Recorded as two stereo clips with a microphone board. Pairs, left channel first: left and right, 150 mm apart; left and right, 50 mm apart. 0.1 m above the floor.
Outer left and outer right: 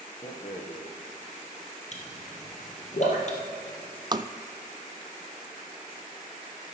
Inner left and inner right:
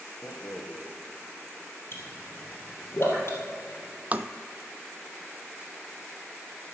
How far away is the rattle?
About 2 m.